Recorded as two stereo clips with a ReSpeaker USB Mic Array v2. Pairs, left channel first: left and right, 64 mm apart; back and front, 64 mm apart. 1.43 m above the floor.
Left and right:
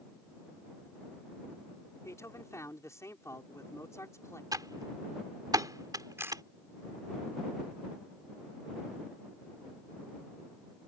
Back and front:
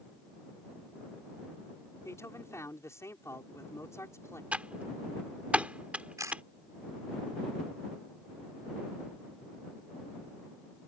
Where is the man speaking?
135° left.